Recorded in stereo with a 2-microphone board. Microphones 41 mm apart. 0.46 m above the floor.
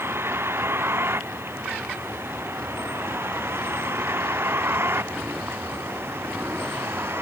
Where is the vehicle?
70° right (ahead or behind).